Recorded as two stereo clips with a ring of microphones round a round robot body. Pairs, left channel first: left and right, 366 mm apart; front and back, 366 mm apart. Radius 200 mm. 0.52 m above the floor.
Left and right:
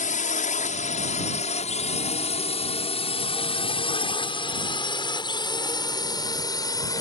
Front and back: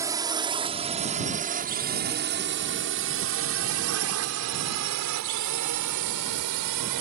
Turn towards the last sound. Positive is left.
turn(degrees=170)